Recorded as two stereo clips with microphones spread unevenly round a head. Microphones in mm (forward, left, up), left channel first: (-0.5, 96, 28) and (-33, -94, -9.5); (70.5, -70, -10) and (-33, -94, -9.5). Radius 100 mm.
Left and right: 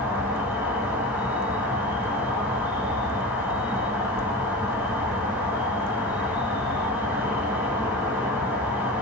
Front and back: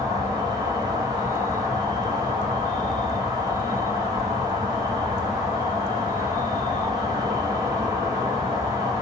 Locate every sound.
0.0 s an insect: 155° right, 0.7 m